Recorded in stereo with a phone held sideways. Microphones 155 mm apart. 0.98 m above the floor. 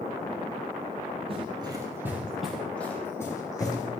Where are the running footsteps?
40° right (ahead or behind), 2.0 m; by 3.9 s 25° left (ahead or behind), 3.5 m.